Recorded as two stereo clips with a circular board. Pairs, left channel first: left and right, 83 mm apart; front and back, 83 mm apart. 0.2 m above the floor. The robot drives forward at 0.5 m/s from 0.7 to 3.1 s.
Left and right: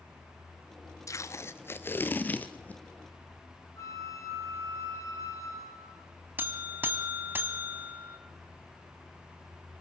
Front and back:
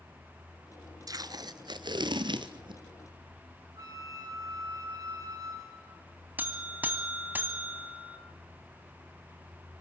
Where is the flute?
140° left, 2.5 m.